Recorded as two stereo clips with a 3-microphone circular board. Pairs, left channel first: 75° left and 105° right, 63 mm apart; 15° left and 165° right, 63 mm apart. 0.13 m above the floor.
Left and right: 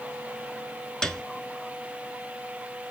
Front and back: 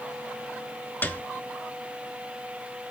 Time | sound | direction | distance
1.0 | a piano | straight ahead | 0.7 m